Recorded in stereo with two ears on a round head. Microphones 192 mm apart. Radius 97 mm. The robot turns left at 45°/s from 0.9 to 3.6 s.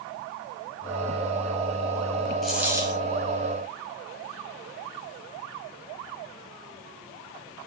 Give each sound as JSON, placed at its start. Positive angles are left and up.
{"t": 2.4, "sound": "a dropped coin", "side_deg": 0, "distance_m": 2.0}